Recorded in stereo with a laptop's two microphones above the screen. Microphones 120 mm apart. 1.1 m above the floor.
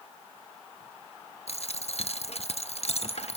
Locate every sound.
1.5 s a dropped coin: 60° left (ahead or behind), 0.7 m